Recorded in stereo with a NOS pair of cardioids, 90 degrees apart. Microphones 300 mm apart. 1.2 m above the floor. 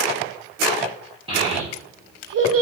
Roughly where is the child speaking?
Ahead.